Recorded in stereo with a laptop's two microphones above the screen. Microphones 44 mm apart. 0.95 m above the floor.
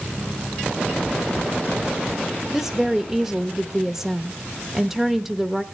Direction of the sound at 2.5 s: 5° right (ahead or behind).